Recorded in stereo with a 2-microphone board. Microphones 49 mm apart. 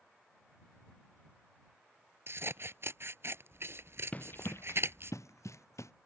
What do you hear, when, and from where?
2.3 s scissors: 55° right (ahead or behind)
4.1 s running footsteps: 30° left (ahead or behind); by 5.9 s 80° left